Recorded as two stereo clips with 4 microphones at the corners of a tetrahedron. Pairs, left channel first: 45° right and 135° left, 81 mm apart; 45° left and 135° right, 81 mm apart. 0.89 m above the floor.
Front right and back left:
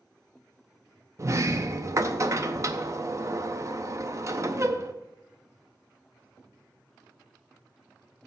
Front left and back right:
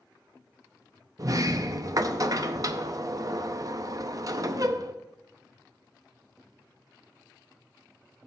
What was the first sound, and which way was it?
A sliding door, straight behind.